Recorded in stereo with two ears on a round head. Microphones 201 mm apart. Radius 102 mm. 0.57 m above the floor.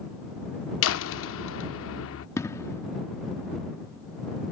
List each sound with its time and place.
0.8 s a door slam: 60° left (ahead or behind)
2.4 s an explosion: 15° left (ahead or behind)